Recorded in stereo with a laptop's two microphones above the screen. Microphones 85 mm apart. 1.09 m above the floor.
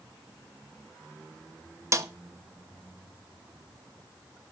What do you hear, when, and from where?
1.9 s a snare drum: 35° right (ahead or behind), 0.8 m